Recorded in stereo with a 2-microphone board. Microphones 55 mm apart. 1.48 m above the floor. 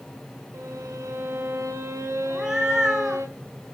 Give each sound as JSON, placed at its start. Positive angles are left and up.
{"t": 0.5, "sound": "a violin", "side_deg": -65, "distance_m": 2.5}
{"t": 2.3, "sound": "a cat meowing", "side_deg": -5, "distance_m": 2.0}